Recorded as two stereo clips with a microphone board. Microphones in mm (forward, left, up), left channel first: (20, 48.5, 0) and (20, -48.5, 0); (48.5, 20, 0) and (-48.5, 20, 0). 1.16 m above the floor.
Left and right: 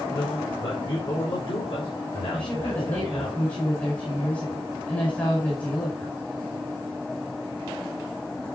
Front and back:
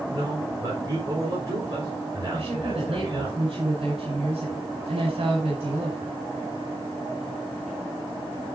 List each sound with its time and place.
0.1 s a man speaking: 125° left, 5 m
2.3 s a woman speaking: 165° left, 4.5 m